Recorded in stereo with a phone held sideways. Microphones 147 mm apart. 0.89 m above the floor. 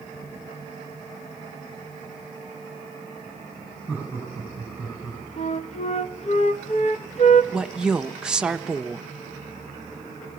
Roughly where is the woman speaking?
Centre.